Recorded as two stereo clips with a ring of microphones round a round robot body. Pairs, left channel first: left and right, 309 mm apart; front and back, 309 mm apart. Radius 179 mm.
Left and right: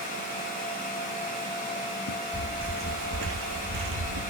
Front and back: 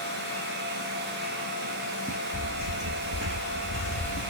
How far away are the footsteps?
About 0.7 m.